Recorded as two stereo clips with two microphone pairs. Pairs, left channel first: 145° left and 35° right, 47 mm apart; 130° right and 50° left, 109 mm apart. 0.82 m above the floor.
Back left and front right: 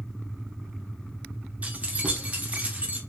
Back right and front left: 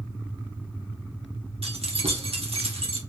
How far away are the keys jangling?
About 1.0 m.